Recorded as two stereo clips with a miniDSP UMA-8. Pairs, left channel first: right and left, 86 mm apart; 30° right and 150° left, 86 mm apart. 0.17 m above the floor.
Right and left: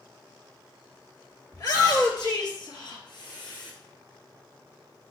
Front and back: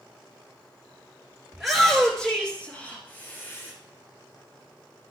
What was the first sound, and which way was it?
A shout, 125° right.